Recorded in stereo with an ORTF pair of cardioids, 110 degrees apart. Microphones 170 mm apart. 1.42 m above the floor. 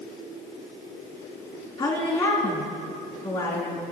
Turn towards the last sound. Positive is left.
turn(degrees=30)